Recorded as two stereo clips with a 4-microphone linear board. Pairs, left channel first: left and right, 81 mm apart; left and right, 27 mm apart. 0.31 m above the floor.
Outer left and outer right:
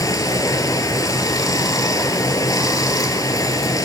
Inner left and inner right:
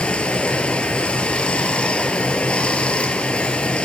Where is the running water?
50° left (ahead or behind), 0.8 m.